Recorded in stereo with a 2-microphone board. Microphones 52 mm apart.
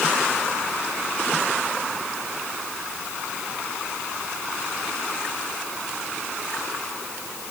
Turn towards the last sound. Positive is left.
No sound to turn to.